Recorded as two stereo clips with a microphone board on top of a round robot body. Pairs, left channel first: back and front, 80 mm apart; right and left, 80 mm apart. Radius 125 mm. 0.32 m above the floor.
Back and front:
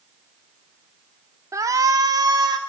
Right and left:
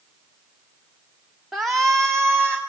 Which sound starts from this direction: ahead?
A shout, at 1.5 s.